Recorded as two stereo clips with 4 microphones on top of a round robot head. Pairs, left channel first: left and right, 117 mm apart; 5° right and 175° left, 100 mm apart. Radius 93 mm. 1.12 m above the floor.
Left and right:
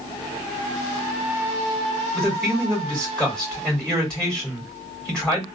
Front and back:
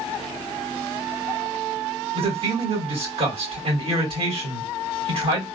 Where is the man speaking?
170° left, 2.5 m.